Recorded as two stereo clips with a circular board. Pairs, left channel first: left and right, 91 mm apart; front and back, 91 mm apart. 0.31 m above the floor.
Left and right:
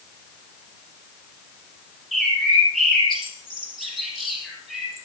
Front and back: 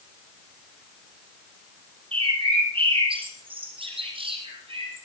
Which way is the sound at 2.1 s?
Straight behind.